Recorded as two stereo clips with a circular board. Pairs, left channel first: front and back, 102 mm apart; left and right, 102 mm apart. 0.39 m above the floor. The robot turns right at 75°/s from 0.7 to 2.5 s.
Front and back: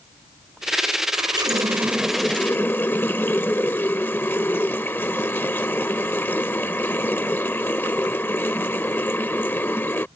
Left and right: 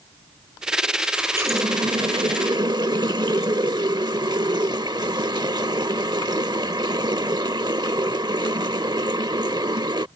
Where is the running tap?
165° right; by 10.1 s 65° right.